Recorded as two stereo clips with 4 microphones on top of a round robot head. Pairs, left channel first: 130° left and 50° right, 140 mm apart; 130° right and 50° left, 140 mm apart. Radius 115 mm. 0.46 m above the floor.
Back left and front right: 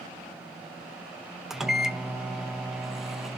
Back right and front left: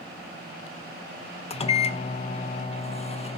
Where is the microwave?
135° right, 0.7 m.